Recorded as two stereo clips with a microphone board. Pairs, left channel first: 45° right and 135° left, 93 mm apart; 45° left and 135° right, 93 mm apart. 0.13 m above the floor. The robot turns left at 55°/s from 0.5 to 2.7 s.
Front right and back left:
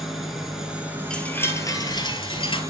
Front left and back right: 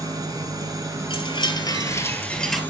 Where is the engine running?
140° right, 1.7 m; by 2.7 s 100° left, 1.7 m.